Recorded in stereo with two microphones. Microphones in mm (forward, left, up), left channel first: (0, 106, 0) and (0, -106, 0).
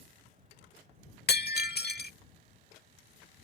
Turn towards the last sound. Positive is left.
turn(degrees=50)  # may be behind; listen again after turning